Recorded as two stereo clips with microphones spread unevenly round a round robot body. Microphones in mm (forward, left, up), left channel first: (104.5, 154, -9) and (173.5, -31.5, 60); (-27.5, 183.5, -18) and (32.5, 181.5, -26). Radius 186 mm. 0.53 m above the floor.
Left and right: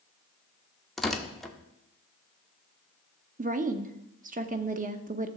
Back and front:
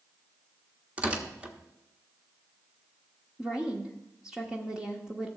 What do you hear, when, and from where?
1.0 s tearing paper: 45° left, 1.3 m
3.4 s a woman speaking: 40° right, 0.8 m